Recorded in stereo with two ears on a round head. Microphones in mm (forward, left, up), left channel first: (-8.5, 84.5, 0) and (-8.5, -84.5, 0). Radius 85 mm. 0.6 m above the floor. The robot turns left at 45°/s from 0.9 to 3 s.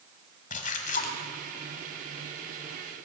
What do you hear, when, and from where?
0.5 s a splash: 40° left (ahead or behind), 1.2 m; by 1.2 s 55° left (ahead or behind), 1.2 m